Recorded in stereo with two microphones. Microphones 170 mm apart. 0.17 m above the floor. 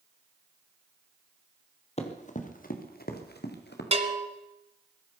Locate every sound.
2.0 s running footsteps: 40° left (ahead or behind), 3 m; by 3.8 s 80° left, 3.5 m
3.9 s a bell: 40° right (ahead or behind), 1.5 m